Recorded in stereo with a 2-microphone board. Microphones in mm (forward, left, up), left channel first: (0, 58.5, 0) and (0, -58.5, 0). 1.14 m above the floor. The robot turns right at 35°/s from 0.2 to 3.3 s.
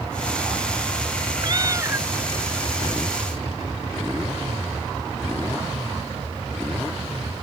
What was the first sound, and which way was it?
A cat meowing, 40° right (ahead or behind).